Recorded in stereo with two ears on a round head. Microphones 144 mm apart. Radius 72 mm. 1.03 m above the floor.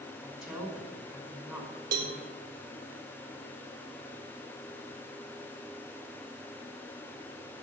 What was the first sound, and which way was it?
A woman speaking, centre (ahead or behind).